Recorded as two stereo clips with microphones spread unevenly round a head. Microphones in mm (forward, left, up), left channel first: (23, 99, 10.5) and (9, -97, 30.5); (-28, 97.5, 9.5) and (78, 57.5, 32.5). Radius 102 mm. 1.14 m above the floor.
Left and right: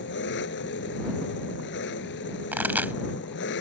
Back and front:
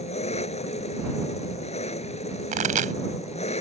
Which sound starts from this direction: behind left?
An engine running, at 0.0 s.